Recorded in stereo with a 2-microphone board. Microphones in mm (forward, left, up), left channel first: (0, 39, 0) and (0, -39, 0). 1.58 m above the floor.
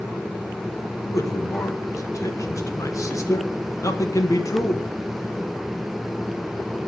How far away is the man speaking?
About 1.3 m.